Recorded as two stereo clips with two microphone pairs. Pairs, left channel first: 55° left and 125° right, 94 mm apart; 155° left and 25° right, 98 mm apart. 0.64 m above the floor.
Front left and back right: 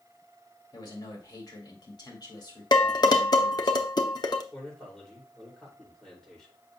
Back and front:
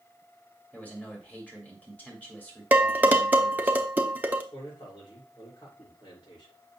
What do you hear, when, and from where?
0.7 s a man speaking: 85° left, 2.5 m
2.7 s dishes clattering: 45° left, 0.8 m
4.5 s a man speaking: 140° left, 2.5 m